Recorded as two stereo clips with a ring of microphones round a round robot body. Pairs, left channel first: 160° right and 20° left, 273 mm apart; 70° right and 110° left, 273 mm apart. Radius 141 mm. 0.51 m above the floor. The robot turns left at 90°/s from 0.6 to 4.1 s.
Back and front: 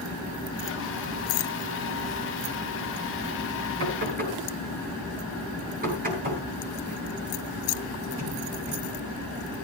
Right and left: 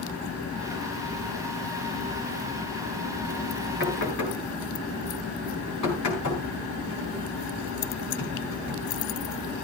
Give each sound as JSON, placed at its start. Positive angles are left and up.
{"t": 3.8, "sound": "knocking", "azimuth_deg": -10, "distance_m": 8.5}